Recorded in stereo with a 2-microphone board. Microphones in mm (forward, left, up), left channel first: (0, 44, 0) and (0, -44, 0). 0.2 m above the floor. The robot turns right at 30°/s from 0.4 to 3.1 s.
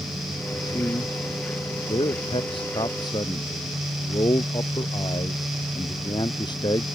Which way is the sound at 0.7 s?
45° left (ahead or behind).